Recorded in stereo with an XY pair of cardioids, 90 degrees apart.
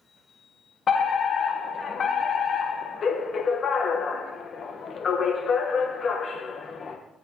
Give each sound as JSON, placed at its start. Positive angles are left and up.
{"t": 0.9, "sound": "a fire alarm", "azimuth_deg": 55, "distance_m": 3.0}